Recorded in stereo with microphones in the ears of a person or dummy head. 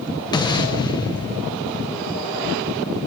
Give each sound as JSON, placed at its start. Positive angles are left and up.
{"t": 0.3, "sound": "an explosion", "side_deg": 20, "distance_m": 0.6}